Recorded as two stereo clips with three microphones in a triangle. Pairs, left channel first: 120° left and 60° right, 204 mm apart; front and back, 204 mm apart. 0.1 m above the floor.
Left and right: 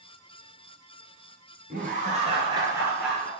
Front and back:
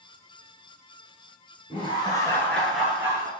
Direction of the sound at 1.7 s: 55° right.